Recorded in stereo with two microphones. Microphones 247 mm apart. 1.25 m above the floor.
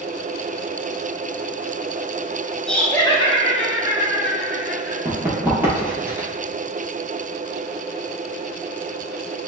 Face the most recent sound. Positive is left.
turn(degrees=-10)  # may be behind; listen again after turning